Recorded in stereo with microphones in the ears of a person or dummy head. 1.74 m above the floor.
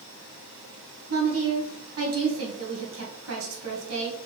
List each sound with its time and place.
1.1 s a woman speaking: 85° right, 1.7 m